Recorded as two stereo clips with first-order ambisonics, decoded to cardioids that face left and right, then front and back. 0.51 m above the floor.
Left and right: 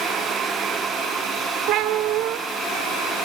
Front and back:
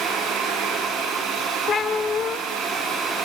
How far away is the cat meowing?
About 0.8 m.